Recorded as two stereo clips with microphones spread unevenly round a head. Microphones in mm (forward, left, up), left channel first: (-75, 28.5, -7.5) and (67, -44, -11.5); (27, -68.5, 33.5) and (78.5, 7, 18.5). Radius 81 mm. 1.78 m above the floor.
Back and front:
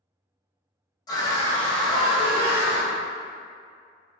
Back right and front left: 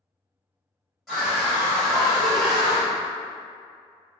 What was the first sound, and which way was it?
A scream, 165° left.